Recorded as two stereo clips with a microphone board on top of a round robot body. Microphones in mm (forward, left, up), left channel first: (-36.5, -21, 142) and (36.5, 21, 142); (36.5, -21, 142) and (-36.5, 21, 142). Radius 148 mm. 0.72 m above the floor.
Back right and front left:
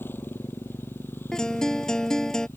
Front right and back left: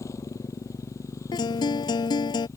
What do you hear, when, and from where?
0.0 s a motorcycle: 85° right
1.3 s a guitar: 65° right